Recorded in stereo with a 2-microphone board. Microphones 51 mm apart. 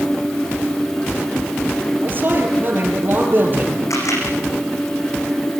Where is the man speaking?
40° right (ahead or behind), 7.5 m.